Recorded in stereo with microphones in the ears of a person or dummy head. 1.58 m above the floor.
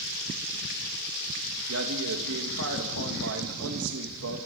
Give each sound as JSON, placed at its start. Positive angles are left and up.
{"t": 1.7, "sound": "a man speaking", "side_deg": -80, "distance_m": 2.0}